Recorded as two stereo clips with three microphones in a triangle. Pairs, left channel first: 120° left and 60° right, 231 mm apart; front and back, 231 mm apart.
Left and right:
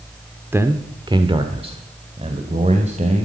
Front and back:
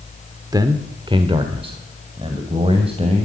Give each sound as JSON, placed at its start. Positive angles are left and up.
{"t": 0.5, "sound": "a man speaking", "azimuth_deg": -130, "distance_m": 0.9}